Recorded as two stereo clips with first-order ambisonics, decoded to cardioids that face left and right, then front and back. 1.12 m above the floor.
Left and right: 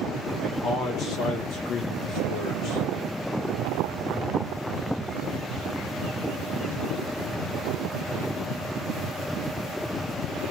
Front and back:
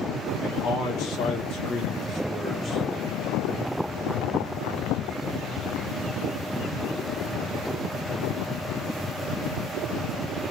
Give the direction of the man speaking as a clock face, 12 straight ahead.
11 o'clock.